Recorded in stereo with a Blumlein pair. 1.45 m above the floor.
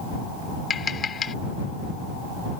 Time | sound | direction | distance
0.7 | tapping | 20° left | ?